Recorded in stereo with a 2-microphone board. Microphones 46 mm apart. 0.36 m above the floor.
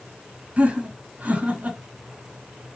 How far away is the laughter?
About 2.5 m.